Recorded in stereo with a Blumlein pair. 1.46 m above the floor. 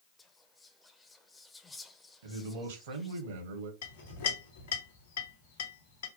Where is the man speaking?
55° right, 1.1 m.